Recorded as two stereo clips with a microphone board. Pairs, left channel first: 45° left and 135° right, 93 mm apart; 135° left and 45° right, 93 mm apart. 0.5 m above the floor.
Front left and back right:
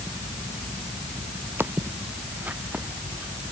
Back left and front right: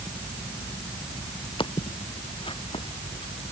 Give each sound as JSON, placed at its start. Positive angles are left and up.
{"t": 1.6, "sound": "footsteps", "azimuth_deg": 160}